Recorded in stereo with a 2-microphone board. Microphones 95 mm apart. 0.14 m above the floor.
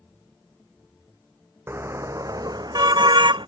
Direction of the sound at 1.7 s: 25° right (ahead or behind).